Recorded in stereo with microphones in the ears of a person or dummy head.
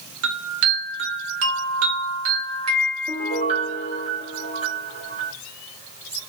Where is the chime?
85° right, 1.1 m.